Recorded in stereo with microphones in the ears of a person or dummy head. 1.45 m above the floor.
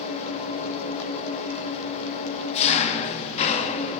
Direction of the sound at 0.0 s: 35° left (ahead or behind).